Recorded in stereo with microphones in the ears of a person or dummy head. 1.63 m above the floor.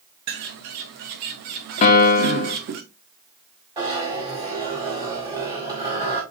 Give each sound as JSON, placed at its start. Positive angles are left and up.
{"t": 0.3, "sound": "a bird", "side_deg": -40, "distance_m": 0.6}
{"t": 1.8, "sound": "a piano", "side_deg": 35, "distance_m": 0.8}
{"t": 3.8, "sound": "a zipper", "side_deg": -20, "distance_m": 1.9}